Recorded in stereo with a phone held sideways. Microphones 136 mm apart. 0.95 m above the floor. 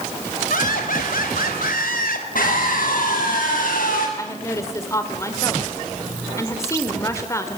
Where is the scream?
80° left, 6 m.